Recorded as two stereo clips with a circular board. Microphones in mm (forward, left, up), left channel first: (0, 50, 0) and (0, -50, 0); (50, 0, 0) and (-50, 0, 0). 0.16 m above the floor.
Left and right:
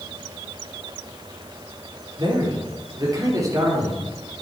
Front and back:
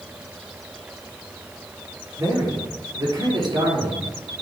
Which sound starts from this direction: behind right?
A man speaking, at 2.2 s.